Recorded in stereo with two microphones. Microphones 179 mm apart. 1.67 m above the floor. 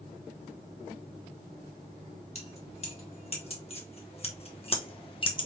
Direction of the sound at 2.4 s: 35° left (ahead or behind).